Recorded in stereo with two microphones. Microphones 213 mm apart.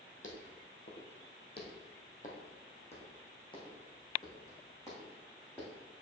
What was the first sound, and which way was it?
Footsteps, 65° left (ahead or behind).